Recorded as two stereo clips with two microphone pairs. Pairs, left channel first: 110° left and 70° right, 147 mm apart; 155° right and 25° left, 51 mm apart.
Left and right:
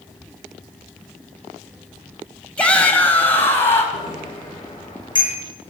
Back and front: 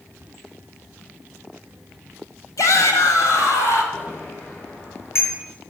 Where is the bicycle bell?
170° left, 8.5 m.